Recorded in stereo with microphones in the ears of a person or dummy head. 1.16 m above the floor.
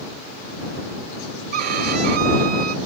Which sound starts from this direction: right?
A violin, at 1.5 s.